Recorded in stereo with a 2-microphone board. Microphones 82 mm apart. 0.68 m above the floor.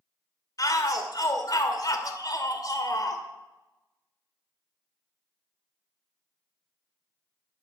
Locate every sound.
0.6 s a shout: 50° left (ahead or behind), 2 m